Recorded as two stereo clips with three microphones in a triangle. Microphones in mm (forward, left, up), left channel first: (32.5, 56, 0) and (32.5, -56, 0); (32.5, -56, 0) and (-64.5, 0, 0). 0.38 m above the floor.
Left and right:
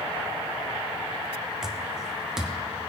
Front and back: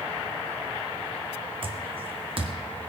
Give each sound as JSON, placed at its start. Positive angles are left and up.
{"t": 1.6, "sound": "footsteps", "azimuth_deg": -175, "distance_m": 1.1}